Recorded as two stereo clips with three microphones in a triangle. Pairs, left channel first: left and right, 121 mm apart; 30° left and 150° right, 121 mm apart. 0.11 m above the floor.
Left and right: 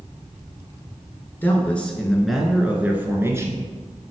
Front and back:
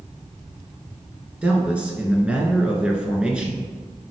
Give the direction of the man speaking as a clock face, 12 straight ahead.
7 o'clock.